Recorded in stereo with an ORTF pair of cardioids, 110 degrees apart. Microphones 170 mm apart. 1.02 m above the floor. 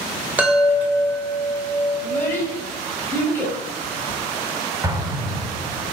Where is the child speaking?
15° left, 4 m.